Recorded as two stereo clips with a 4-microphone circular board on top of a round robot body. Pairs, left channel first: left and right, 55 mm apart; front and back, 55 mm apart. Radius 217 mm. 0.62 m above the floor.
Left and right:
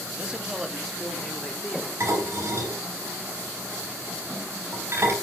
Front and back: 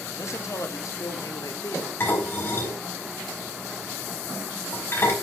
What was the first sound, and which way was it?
A man speaking, 25° right.